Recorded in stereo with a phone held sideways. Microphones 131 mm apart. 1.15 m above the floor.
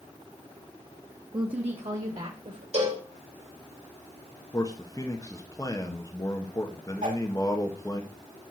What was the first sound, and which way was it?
A woman speaking, 35° right (ahead or behind).